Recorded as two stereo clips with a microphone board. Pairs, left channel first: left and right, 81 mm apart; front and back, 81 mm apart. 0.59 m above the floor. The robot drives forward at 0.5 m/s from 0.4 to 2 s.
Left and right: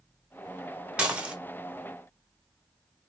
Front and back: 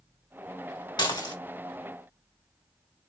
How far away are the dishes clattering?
About 1.3 m.